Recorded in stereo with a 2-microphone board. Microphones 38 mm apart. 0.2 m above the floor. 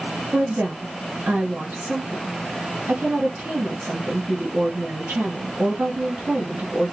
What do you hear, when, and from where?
0.3 s a woman speaking: 60° right (ahead or behind), 2.5 m